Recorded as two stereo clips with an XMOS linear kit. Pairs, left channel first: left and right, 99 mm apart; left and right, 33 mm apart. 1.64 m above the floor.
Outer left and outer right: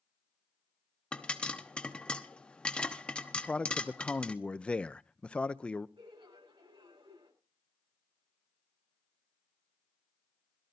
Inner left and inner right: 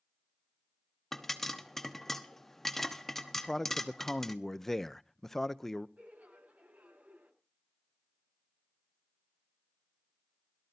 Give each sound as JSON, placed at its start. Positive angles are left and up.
{"t": 1.1, "sound": "a pop", "side_deg": 10, "distance_m": 1.1}
{"t": 3.4, "sound": "a man speaking", "side_deg": 10, "distance_m": 0.6}
{"t": 6.0, "sound": "laughter", "side_deg": -55, "distance_m": 6.5}